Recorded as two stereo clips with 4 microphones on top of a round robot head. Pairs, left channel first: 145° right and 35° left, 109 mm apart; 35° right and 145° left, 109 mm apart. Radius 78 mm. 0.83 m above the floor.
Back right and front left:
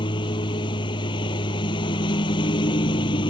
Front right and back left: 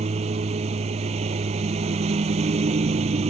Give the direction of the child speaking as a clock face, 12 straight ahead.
No child speaking in this recording.